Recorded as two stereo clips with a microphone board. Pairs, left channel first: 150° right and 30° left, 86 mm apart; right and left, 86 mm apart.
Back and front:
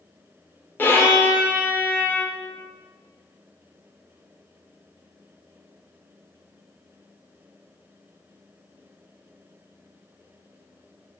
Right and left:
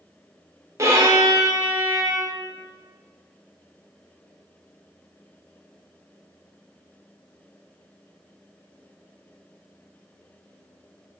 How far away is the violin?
About 0.7 m.